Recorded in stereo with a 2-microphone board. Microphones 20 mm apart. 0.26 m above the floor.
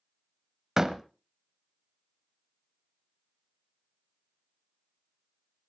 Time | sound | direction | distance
0.8 | a door slam | 20° right (ahead or behind) | 1.0 m